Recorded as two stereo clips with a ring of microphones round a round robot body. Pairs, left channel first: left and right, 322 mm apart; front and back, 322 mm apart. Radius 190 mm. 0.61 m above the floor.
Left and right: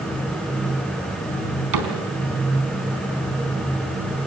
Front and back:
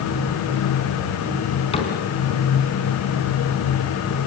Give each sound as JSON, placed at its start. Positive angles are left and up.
{"t": 1.7, "sound": "a cupboard door", "azimuth_deg": -75, "distance_m": 4.0}